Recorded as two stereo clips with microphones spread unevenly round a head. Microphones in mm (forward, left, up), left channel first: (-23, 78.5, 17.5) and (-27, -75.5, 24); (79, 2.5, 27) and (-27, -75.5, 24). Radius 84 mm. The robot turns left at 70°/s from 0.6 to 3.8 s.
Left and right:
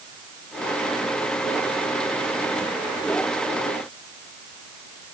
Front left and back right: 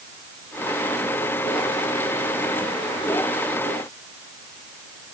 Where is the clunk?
I don't hear a clunk.